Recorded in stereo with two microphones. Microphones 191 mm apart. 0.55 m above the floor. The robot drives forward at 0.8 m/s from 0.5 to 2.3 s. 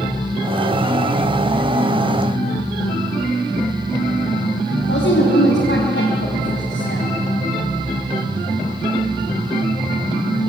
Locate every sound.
4.8 s a woman speaking: 75° left (ahead or behind), 3 m